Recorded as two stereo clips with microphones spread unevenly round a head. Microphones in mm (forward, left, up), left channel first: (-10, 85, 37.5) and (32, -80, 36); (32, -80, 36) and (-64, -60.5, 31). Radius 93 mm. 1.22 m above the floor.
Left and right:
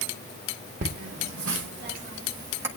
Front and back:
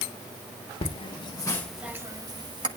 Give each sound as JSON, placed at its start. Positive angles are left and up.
{"t": 0.8, "sound": "laughter", "azimuth_deg": -35, "distance_m": 1.2}